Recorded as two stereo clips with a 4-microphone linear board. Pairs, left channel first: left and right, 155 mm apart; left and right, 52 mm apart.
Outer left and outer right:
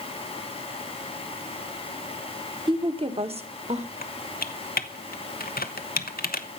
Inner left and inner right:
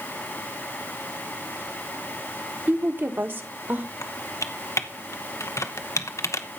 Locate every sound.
2.7 s a woman speaking: 30° right (ahead or behind), 1.2 m; by 3.9 s 45° right (ahead or behind), 2.0 m
4.0 s typing on a keyboard: 70° left (ahead or behind), 1.0 m